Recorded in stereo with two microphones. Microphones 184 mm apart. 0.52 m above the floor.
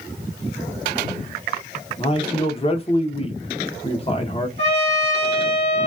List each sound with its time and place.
2.0 s a man speaking: 30° left (ahead or behind), 1.0 m
4.6 s a trumpet: 40° left (ahead or behind), 2.5 m